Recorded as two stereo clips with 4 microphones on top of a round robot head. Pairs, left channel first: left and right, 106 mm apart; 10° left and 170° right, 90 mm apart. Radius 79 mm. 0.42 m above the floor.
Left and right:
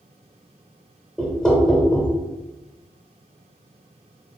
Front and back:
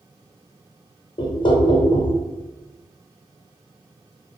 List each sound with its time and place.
1.2 s knocking: 10° left, 1.0 m